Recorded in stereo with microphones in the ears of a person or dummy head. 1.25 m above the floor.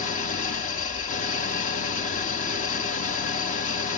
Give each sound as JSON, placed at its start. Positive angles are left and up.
{"t": 0.0, "sound": "an engine running", "side_deg": 40, "distance_m": 0.9}